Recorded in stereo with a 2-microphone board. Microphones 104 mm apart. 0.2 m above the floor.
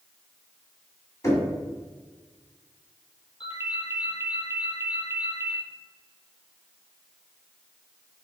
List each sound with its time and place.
1.2 s knocking: 30° left (ahead or behind), 1.2 m
3.4 s a ringtone: 55° left (ahead or behind), 1.3 m